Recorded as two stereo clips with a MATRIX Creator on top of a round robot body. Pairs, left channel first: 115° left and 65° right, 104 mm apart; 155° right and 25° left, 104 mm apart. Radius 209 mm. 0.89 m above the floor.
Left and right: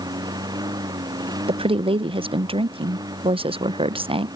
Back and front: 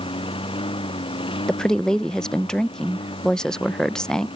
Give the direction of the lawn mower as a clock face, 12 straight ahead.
4 o'clock.